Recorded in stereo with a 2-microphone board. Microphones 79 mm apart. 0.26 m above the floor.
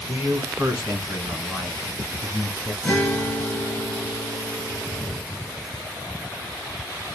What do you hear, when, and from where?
0.1 s a man speaking: 30° right (ahead or behind), 1.6 m; by 2.7 s 20° right (ahead or behind), 3 m
2.8 s a guitar: centre (ahead or behind), 3.5 m